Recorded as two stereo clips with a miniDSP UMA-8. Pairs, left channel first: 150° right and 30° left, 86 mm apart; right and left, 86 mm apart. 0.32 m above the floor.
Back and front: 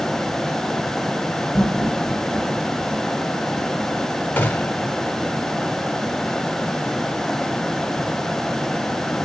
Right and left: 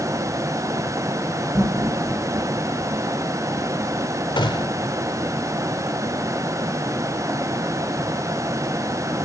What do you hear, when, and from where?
1.5 s laughter: 115° left, 4 m; by 3.1 s 130° left, 4 m
4.4 s a gunshot: 80° right, 0.7 m